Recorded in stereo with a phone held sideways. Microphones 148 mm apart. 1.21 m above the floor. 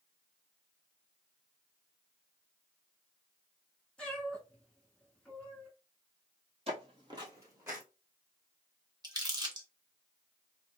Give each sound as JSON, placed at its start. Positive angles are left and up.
{"t": 4.0, "sound": "a cat meowing", "side_deg": 5, "distance_m": 1.3}
{"t": 6.7, "sound": "footsteps", "side_deg": -40, "distance_m": 1.5}
{"t": 9.0, "sound": "crumpling", "side_deg": -25, "distance_m": 1.0}